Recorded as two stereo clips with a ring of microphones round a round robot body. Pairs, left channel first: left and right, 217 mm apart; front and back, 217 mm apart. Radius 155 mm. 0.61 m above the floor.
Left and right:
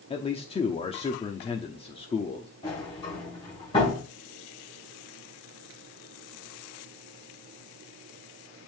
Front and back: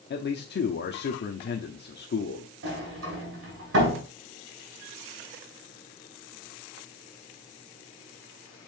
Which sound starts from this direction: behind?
A sliding door, at 2.6 s.